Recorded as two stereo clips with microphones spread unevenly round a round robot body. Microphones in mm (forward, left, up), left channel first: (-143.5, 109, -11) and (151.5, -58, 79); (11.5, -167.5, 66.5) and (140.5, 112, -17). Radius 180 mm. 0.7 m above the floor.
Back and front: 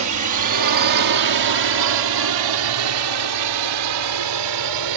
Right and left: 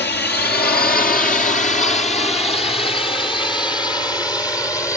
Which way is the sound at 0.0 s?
60° right.